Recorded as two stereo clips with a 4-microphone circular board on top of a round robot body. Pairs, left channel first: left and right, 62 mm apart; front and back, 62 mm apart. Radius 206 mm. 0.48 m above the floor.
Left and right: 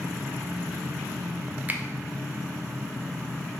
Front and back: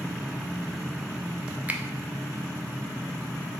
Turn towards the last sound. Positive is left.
turn(degrees=-130)